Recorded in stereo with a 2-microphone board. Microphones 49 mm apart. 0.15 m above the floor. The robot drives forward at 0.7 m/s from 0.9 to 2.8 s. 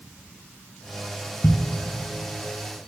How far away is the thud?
About 1.6 m.